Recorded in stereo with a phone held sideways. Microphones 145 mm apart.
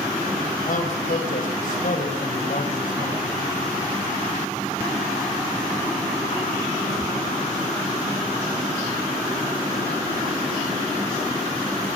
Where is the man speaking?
70° left (ahead or behind), 5 m.